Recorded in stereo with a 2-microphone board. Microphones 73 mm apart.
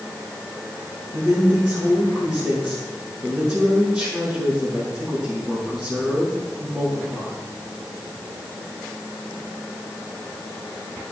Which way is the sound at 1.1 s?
15° right (ahead or behind).